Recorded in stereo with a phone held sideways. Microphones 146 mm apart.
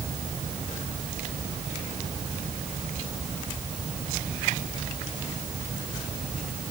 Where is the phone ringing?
No phone ringing in this recording.